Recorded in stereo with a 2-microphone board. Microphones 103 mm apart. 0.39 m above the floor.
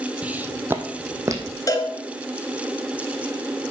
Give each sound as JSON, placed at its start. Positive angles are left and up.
{"t": 0.2, "sound": "footsteps", "side_deg": -10, "distance_m": 0.8}
{"t": 1.7, "sound": "a cowbell", "side_deg": 35, "distance_m": 1.8}